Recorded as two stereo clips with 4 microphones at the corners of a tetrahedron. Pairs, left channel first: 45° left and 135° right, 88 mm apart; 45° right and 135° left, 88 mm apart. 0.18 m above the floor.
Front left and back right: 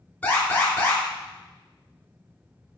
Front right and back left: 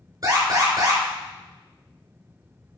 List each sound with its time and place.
0.2 s an alarm: 115° left, 3.5 m